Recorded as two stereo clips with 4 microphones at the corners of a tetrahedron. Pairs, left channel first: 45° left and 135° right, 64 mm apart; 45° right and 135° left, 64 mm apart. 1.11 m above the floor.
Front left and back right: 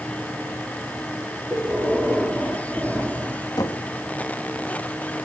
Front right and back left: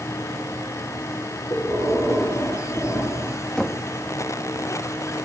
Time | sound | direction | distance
1.5 | breathing | 50° right | 5.5 m
3.6 | knocking | 35° left | 1.5 m